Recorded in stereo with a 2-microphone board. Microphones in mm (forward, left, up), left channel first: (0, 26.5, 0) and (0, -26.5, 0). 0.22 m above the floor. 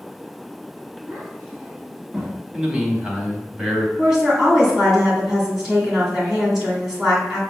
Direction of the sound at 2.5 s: 15° right (ahead or behind).